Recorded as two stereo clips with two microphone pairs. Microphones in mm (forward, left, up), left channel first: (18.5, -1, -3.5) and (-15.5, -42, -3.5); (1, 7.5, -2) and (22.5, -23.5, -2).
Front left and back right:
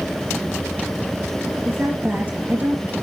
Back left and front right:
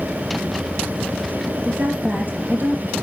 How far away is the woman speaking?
About 3.5 m.